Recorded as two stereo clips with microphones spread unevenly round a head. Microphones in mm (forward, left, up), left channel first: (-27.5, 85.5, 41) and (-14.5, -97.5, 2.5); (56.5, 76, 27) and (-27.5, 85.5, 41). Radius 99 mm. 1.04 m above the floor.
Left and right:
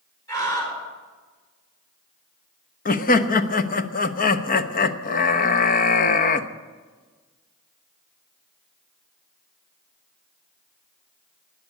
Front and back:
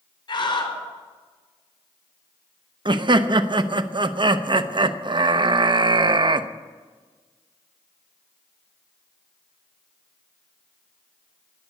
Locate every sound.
0.3 s a scream: 20° left, 5 m
2.9 s laughter: 140° left, 1.0 m